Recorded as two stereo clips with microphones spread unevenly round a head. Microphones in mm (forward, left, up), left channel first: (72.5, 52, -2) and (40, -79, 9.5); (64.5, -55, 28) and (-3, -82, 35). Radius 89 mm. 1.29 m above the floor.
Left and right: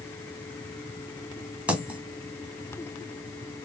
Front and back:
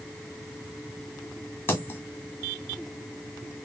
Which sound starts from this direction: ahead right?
A dropped coin, at 1.7 s.